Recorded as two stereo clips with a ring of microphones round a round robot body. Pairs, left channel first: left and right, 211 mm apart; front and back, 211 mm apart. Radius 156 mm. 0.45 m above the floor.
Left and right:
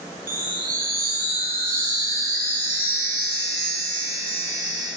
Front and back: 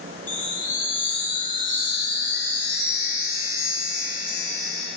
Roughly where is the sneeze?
I don't hear a sneeze.